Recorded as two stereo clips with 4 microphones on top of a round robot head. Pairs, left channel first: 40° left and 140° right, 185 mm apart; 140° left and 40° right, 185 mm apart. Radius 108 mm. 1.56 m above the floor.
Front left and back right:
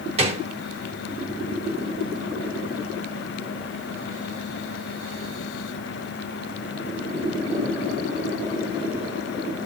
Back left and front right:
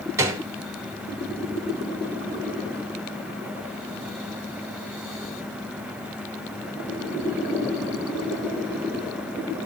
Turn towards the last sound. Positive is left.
turn(degrees=-105)